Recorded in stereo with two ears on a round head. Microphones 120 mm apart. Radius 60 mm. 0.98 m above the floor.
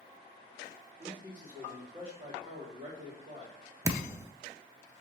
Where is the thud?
20° right (ahead or behind), 0.5 m.